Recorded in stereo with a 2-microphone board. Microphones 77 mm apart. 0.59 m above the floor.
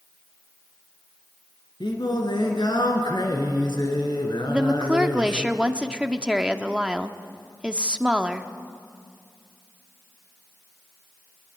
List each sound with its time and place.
1.8 s singing: 75° left (ahead or behind), 3 m
4.5 s a woman speaking: 15° right (ahead or behind), 1.0 m